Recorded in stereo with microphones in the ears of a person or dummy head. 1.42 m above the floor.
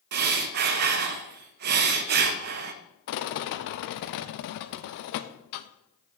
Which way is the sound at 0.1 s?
55° right (ahead or behind).